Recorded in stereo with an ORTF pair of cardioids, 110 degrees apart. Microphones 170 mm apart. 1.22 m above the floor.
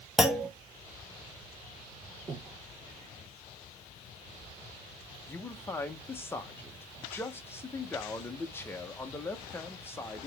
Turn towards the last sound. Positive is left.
turn(degrees=15)